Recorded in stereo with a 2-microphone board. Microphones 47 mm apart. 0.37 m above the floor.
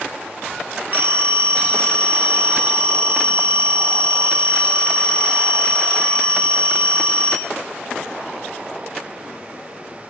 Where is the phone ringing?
45° right (ahead or behind), 0.6 m.